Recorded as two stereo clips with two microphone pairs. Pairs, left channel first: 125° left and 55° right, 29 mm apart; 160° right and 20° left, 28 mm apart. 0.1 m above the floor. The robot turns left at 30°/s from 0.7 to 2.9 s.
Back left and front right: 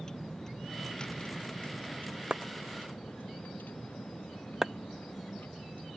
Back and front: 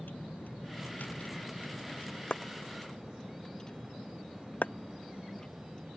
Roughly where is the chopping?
Behind right.